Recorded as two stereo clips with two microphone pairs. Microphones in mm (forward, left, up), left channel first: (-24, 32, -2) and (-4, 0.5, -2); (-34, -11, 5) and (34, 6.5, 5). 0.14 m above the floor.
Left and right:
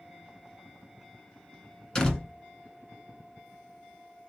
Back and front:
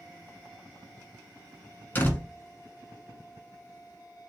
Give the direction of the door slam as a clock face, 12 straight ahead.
6 o'clock.